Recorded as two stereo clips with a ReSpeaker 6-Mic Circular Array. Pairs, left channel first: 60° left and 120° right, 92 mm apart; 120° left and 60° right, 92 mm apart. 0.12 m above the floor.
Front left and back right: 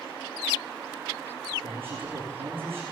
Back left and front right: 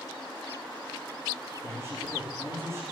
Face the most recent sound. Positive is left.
turn(degrees=-120)